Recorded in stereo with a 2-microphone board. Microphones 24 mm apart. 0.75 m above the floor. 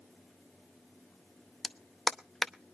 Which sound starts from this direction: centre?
A clap, at 1.6 s.